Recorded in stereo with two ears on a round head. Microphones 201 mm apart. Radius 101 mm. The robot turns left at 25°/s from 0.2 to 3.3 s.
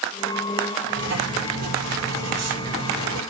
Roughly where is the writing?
Ahead right.